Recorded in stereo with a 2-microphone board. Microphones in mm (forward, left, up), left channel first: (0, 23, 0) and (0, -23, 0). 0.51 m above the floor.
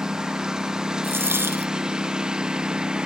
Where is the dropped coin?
55° right (ahead or behind).